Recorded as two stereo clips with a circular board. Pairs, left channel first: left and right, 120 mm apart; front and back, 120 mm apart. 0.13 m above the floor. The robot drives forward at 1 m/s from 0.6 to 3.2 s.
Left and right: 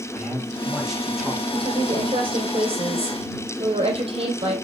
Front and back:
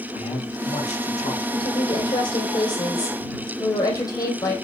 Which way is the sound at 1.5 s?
40° right.